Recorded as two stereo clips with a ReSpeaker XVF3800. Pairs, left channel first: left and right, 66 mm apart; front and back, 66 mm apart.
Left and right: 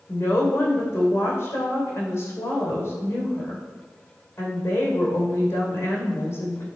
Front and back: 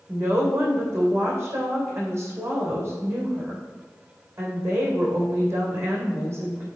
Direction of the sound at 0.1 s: 135° left.